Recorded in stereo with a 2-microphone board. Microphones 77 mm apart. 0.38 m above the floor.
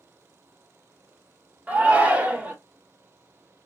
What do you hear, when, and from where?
1.7 s a shout: 20° right (ahead or behind), 0.8 m